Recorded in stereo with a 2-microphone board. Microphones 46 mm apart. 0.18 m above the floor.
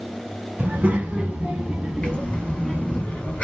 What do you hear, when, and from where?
0.6 s a child speaking: 35° right (ahead or behind), 1.1 m; by 3.0 s 10° left (ahead or behind), 1.2 m
2.0 s breathing: 30° left (ahead or behind), 1.1 m